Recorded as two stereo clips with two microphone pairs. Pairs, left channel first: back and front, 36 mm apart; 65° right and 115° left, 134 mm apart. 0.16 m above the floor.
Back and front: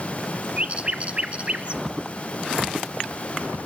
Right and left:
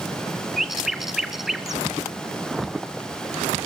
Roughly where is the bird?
Ahead left.